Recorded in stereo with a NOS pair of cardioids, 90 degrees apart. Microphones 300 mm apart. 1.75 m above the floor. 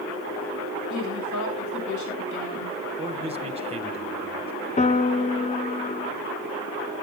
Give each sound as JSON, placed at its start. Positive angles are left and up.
{"t": 0.9, "sound": "a woman speaking", "azimuth_deg": 70, "distance_m": 7.0}
{"t": 3.0, "sound": "a man speaking", "azimuth_deg": -20, "distance_m": 2.0}
{"t": 4.8, "sound": "a piano", "azimuth_deg": 25, "distance_m": 0.9}